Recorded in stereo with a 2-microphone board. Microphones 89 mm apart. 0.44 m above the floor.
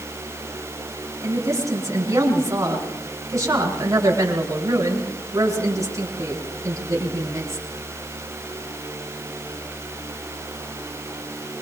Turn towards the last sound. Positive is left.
turn(degrees=-35)  # may be behind; listen again after turning